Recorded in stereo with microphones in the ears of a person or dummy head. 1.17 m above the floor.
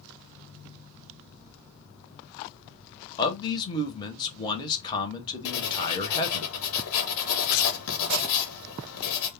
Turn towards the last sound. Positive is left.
turn(degrees=70)  # may be behind; listen again after turning